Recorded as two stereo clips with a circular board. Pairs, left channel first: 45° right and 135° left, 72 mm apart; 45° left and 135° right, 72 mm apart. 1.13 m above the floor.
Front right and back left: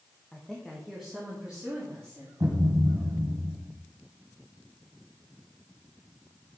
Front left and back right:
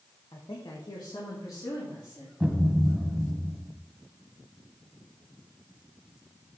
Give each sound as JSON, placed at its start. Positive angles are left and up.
{"t": 0.3, "sound": "a woman speaking", "azimuth_deg": 30, "distance_m": 1.3}
{"t": 2.4, "sound": "a thud", "azimuth_deg": 150, "distance_m": 1.5}